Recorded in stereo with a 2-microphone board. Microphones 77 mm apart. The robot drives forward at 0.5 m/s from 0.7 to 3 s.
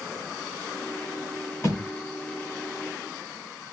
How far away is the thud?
About 1.9 m.